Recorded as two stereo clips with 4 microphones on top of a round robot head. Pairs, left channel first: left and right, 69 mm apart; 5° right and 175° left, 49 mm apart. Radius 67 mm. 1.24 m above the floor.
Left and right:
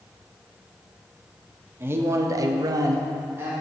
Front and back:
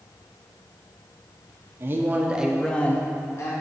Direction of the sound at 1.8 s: 145° right.